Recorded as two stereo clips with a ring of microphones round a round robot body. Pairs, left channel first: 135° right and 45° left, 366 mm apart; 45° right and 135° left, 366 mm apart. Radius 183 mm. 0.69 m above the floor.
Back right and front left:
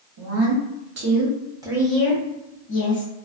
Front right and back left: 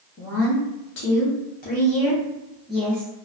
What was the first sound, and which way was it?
A woman speaking, 5° left.